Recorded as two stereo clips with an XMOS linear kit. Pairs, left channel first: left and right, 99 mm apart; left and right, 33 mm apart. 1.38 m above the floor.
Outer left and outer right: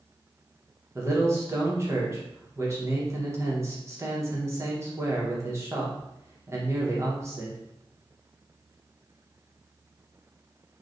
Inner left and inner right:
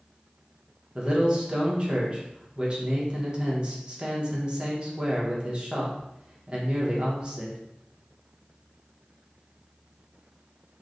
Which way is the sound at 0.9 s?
30° right (ahead or behind).